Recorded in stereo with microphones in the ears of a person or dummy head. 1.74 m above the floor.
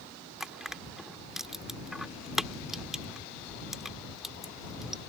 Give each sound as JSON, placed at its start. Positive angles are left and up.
{"t": 0.4, "sound": "crushing", "side_deg": -5}